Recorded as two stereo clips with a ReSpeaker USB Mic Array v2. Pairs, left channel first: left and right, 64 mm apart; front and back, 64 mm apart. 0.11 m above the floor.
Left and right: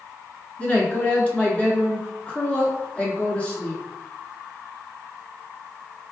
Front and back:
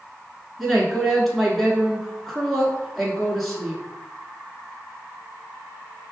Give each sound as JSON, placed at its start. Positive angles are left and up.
{"t": 0.6, "sound": "a woman speaking", "azimuth_deg": 85, "distance_m": 1.1}